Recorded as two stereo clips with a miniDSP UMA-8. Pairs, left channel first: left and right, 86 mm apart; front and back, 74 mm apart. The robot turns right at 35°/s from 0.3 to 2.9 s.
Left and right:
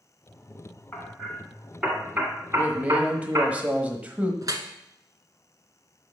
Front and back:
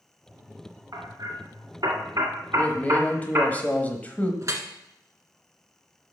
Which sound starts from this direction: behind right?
Dripping, at 4.4 s.